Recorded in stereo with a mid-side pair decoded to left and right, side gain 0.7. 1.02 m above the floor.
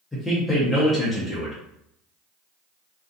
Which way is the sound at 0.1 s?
15° left.